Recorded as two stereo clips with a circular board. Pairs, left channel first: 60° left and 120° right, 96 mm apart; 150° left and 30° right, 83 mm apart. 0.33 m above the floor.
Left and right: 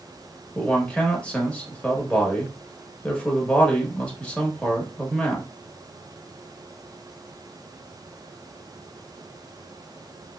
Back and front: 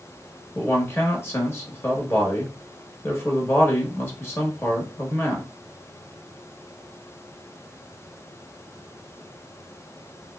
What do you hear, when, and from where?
0.6 s a man speaking: 125° left, 0.9 m